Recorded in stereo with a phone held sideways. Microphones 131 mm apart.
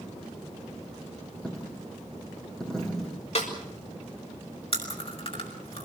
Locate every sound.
1.4 s a dropped coin: 5° left (ahead or behind), 6.5 m
3.4 s a snare drum: 55° left (ahead or behind), 6 m
4.7 s chewing: 45° left (ahead or behind), 6 m